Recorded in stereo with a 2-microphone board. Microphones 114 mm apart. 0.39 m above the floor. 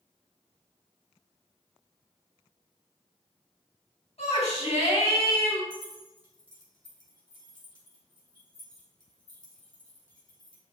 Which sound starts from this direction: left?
A shout, at 4.2 s.